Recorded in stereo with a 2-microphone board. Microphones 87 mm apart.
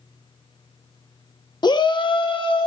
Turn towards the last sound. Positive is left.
turn(degrees=70)  # may be behind; listen again after turning